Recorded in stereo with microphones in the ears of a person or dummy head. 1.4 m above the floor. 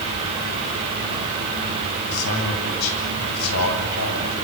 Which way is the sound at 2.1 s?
90° left.